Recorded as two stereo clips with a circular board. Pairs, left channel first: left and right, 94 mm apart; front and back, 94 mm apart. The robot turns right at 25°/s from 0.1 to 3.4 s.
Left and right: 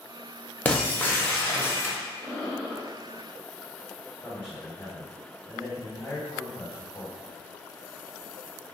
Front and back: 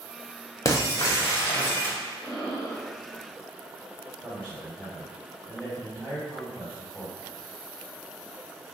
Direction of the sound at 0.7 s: 25° left.